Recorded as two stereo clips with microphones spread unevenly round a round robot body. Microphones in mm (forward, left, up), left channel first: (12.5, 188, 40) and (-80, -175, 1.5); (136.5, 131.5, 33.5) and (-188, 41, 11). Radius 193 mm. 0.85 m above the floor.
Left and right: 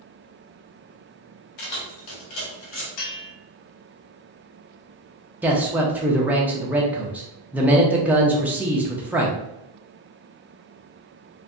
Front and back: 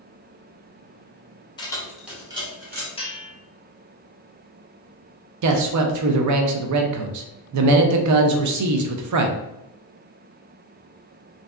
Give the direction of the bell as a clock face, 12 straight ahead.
9 o'clock.